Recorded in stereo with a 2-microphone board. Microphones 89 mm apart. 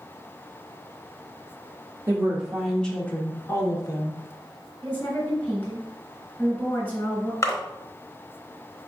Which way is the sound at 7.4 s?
35° left (ahead or behind).